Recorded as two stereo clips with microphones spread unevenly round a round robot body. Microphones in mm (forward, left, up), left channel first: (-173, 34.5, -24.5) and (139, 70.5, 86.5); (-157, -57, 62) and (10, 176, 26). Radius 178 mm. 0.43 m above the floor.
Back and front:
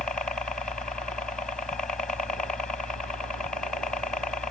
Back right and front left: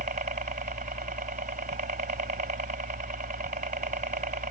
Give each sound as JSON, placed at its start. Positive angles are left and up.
{"t": 0.0, "sound": "a helicopter", "azimuth_deg": 110}